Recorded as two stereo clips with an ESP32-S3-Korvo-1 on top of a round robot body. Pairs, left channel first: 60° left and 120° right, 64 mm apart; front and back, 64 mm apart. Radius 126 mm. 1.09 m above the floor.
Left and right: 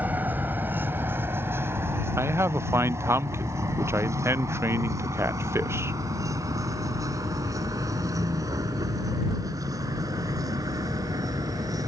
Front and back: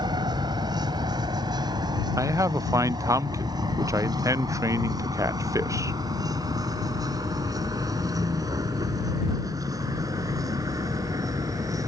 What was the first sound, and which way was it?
A vehicle, 175° left.